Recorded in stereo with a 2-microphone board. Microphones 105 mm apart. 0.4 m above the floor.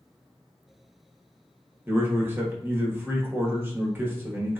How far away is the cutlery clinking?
I don't hear cutlery clinking.